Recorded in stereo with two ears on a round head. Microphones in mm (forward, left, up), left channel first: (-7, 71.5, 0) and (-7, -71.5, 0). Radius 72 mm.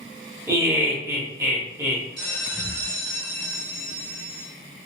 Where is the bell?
5° left (ahead or behind), 1.4 m.